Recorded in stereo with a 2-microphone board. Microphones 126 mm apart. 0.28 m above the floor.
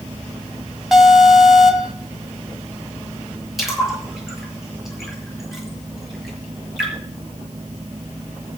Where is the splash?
Centre (ahead or behind), 6.5 m.